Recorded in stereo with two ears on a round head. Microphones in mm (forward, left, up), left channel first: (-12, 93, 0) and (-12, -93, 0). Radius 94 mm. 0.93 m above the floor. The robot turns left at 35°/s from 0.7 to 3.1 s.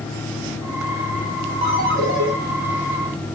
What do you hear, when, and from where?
1.6 s a ringtone: 30° right (ahead or behind), 0.9 m; by 2.3 s 55° right (ahead or behind), 0.9 m